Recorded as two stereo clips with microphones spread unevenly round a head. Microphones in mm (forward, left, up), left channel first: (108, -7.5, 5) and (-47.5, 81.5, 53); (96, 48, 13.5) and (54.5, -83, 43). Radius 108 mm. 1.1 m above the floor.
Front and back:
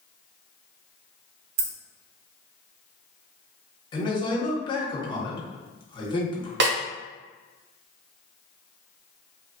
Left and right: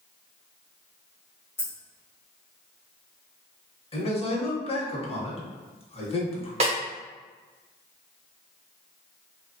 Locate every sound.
1.6 s keys jangling: 150° left, 0.6 m
3.9 s a man speaking: 30° left, 1.0 m
6.6 s a snare drum: 165° right, 0.6 m